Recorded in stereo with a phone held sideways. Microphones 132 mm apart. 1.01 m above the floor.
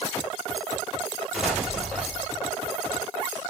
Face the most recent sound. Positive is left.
turn(degrees=-5)  # may be behind; listen again after turning